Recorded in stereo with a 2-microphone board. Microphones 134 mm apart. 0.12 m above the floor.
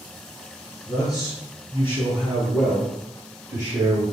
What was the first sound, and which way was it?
A man speaking, 35° left (ahead or behind).